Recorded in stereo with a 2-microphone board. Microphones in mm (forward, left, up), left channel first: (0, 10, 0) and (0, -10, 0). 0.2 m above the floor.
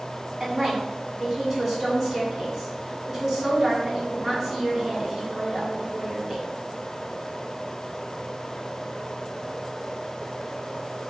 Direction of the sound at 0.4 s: 30° right (ahead or behind).